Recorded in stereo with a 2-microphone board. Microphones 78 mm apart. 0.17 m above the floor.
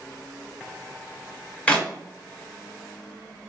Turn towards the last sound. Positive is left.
turn(degrees=20)  # may be behind; listen again after turning